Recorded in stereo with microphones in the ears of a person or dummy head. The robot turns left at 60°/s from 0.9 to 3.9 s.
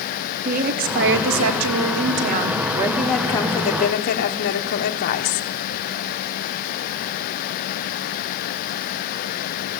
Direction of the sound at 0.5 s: 50° right.